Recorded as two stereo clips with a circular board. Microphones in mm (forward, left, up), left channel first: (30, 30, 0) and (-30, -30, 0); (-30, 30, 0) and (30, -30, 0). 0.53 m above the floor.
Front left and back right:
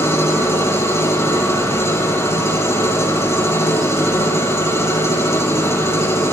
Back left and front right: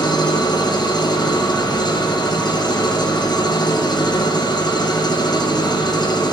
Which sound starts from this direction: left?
An engine running, at 0.0 s.